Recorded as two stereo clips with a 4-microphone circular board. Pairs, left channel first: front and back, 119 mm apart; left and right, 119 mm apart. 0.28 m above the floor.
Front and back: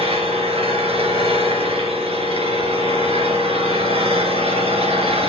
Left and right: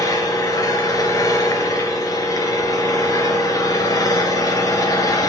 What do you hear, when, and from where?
0.0 s an engine running: 150° left, 2.5 m